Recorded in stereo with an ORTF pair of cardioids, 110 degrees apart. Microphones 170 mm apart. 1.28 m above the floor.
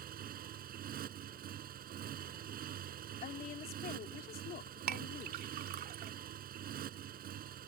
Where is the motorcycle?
55° right.